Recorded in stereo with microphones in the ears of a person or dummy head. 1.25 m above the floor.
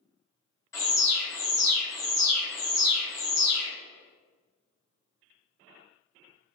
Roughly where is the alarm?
Left.